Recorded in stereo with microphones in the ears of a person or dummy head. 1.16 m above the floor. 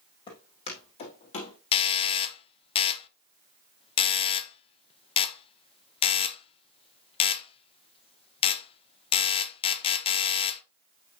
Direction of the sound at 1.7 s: 25° left (ahead or behind).